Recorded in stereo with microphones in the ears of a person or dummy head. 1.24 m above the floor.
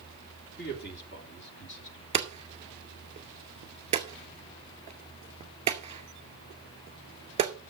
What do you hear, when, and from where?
0.6 s a man speaking: 50° left (ahead or behind), 2.5 m; by 2.0 s 60° left (ahead or behind), 3.5 m
2.1 s hammering: 30° right (ahead or behind), 2 m